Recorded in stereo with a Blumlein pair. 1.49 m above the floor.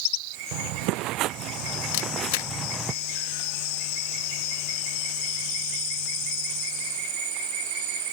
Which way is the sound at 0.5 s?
45° right.